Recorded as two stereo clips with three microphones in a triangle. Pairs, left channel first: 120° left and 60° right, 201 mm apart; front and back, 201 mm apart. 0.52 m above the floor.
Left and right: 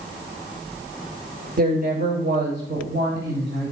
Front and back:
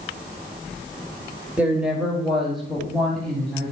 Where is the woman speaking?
100° right, 1.4 m; by 3.7 s 85° right, 3.5 m.